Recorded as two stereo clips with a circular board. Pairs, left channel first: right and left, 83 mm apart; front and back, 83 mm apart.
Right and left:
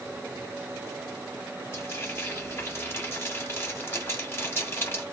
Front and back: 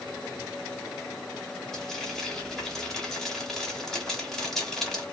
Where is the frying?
80° right, 1.4 m.